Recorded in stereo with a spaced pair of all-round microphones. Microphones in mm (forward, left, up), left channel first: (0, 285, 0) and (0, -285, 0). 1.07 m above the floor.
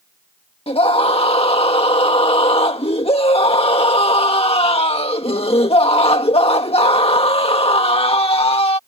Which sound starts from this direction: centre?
A scream, at 0.7 s.